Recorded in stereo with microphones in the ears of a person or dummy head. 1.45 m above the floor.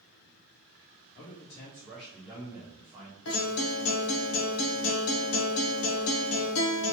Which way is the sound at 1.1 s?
45° left (ahead or behind).